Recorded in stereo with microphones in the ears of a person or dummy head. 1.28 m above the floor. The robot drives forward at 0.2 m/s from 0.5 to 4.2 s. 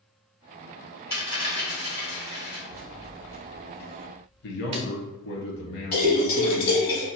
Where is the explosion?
I don't hear an explosion.